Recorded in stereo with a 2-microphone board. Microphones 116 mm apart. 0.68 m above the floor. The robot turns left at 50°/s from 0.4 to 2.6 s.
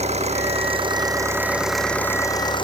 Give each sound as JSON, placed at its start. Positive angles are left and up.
{"t": 0.0, "sound": "an engine running", "azimuth_deg": -115}